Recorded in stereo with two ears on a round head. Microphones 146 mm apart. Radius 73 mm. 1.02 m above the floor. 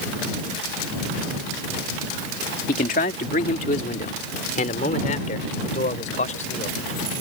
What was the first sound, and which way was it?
A man speaking, 50° left (ahead or behind).